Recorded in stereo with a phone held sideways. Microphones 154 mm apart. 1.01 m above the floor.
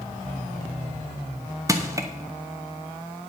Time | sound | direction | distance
1.7 | crushing | 20° right (ahead or behind) | 0.9 m